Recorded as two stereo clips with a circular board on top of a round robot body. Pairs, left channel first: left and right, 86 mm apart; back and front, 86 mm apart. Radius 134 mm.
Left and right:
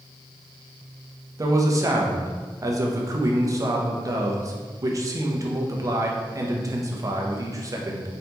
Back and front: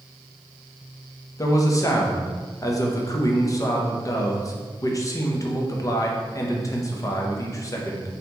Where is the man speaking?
135° right, 0.9 m.